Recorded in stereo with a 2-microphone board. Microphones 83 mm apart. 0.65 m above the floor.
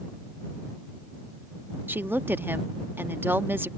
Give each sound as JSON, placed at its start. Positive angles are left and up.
{"t": 1.9, "sound": "a woman speaking", "side_deg": -25}